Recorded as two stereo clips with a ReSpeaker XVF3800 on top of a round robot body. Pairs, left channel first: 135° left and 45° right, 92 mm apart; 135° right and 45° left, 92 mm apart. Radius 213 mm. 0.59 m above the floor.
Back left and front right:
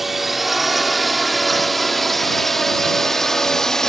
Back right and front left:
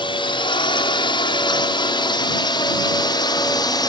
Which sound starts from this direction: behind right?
A drone, at 0.0 s.